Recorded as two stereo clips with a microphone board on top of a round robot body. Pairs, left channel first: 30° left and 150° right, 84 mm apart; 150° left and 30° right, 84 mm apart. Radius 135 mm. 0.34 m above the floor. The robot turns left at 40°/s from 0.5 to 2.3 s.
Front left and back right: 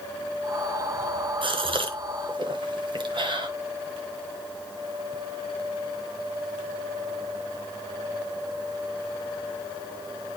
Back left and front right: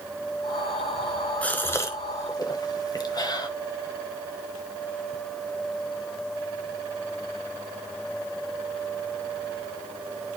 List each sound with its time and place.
1.4 s a gasp: 135° right, 1.2 m; by 3.5 s 170° right, 1.2 m